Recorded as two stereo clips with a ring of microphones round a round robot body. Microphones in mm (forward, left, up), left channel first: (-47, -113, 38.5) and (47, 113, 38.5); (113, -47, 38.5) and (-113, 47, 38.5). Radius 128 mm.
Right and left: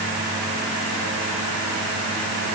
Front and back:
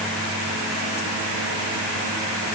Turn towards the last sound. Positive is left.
No sound to turn to.